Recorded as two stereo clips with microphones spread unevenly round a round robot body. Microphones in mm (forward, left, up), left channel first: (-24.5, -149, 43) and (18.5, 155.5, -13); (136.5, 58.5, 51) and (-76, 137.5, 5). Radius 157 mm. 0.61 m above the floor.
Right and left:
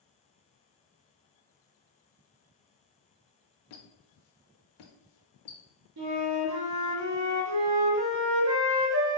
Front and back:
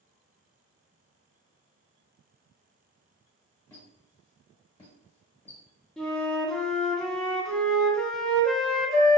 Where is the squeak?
100° right, 0.6 m.